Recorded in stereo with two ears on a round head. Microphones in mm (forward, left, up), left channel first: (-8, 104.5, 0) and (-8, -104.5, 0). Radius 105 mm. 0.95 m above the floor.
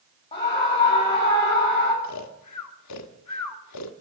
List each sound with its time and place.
0.3 s a scream: 25° left (ahead or behind), 2.5 m
2.0 s snoring: 85° left, 1.6 m